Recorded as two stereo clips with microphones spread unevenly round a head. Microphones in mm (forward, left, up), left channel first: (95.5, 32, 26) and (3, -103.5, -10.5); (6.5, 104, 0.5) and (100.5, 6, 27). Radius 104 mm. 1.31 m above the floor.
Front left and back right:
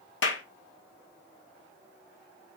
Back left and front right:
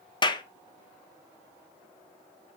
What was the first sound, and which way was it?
A clap, 75° left.